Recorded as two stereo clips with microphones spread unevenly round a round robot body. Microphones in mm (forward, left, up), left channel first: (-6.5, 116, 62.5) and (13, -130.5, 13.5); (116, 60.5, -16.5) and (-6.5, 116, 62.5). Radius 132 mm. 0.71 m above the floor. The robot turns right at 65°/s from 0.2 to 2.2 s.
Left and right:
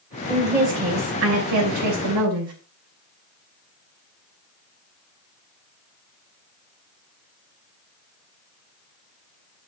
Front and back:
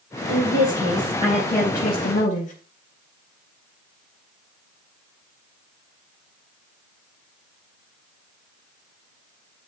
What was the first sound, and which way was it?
A woman speaking, 175° left.